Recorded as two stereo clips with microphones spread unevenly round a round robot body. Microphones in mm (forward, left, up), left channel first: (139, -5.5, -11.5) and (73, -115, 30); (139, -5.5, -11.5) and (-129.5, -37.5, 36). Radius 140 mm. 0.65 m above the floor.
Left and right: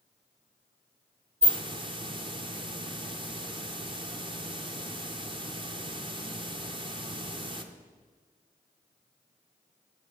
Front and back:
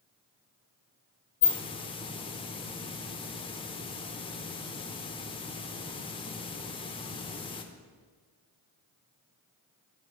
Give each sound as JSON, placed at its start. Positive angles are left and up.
{"t": 1.4, "sound": "a hiss", "azimuth_deg": -65, "distance_m": 1.1}